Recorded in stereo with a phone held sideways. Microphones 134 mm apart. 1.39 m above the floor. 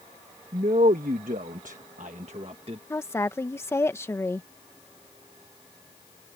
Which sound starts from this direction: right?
A man speaking, at 0.5 s.